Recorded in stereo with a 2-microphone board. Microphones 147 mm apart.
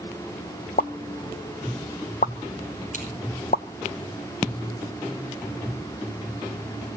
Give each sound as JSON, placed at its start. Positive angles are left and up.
{"t": 0.8, "sound": "a pop", "side_deg": 65, "distance_m": 0.5}
{"t": 2.9, "sound": "scissors", "side_deg": 55, "distance_m": 6.0}